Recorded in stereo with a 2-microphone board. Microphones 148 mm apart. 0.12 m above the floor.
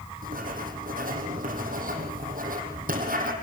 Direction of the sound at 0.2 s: 70° right (ahead or behind).